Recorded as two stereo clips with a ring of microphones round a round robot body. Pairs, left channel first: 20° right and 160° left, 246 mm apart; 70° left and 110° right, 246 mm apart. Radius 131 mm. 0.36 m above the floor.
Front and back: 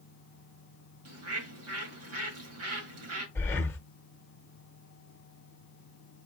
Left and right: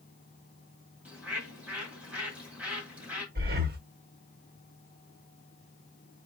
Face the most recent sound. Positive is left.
turn(degrees=-100)